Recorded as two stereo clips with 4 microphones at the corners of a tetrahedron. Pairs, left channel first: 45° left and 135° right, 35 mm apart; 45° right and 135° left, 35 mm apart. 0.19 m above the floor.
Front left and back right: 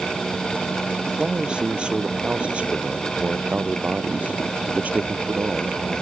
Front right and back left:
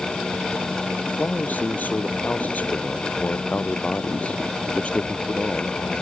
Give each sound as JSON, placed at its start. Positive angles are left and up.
{"t": 1.1, "sound": "a man speaking", "azimuth_deg": -70}